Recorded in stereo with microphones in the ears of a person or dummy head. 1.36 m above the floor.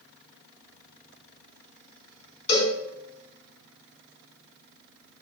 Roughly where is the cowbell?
Left.